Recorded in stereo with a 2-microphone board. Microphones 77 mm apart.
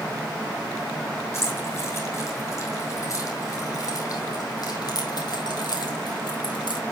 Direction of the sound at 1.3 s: 35° left (ahead or behind).